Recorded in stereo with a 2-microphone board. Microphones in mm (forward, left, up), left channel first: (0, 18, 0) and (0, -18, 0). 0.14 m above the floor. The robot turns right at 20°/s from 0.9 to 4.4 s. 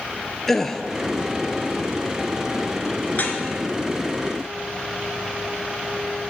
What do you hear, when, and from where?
0.5 s a gasp: 10° left (ahead or behind), 0.6 m
3.1 s dripping: 50° left (ahead or behind), 1.1 m